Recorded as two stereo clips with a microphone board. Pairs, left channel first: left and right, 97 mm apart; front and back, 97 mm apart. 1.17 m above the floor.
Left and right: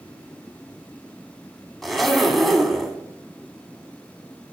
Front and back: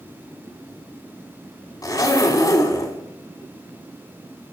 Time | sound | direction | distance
1.8 | a zipper | straight ahead | 1.3 m